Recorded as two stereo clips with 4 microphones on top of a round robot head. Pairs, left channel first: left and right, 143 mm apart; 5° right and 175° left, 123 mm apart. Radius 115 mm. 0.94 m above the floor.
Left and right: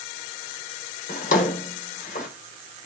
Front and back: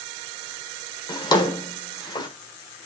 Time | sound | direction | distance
1.1 | a drawer | 45° left | 1.5 m